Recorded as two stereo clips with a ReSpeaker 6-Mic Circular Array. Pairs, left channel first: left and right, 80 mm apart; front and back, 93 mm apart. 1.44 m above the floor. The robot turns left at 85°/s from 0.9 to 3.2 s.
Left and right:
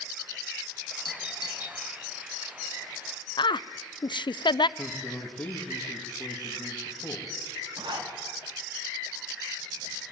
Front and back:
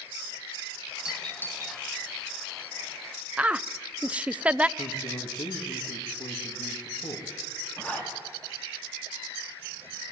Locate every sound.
1.1 s a doorbell: 100° left, 2.5 m; by 1.8 s 40° left, 2.5 m
3.4 s a woman speaking: 105° left, 0.5 m
4.8 s a man speaking: 20° left, 2.5 m
7.8 s a zipper: 75° right, 3.5 m